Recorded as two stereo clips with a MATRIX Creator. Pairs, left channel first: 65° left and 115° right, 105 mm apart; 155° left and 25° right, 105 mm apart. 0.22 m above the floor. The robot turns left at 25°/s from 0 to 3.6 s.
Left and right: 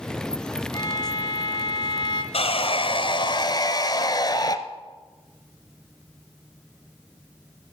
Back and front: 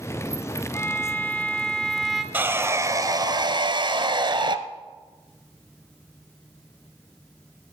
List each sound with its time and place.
0.7 s a violin: 105° left, 1.2 m; by 2.2 s 70° left, 1.2 m
2.3 s sawing: 50° left, 0.7 m; by 4.6 s 20° left, 0.7 m